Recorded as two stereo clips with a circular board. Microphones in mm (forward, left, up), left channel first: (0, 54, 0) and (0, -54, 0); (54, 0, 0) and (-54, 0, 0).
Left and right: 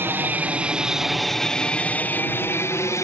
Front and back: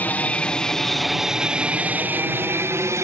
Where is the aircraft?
50° right; by 3.0 s 135° left.